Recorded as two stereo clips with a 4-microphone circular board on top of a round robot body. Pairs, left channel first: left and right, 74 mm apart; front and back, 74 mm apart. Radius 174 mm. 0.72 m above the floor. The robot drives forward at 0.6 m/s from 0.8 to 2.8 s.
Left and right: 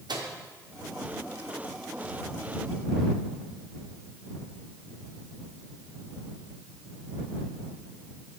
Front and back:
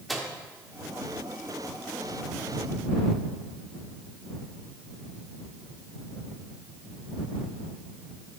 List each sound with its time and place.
0.1 s a microwave: 90° right, 1.6 m